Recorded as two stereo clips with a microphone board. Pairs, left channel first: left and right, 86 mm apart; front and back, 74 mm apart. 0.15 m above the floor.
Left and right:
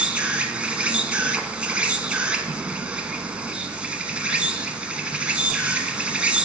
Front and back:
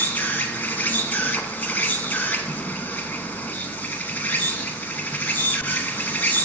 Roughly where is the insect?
Ahead right.